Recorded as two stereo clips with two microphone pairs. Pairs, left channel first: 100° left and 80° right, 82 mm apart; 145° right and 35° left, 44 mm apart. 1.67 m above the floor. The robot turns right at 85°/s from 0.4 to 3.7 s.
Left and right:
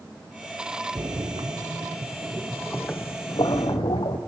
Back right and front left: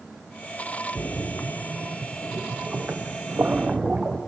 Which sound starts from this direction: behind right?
A splash, at 0.9 s.